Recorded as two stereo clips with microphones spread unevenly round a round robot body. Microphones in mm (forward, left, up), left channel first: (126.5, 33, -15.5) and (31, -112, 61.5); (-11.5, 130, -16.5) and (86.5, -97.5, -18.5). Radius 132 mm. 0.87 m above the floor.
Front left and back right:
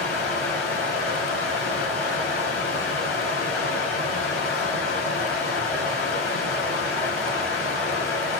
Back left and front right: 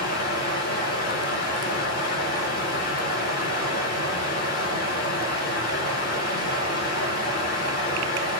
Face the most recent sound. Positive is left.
turn(degrees=65)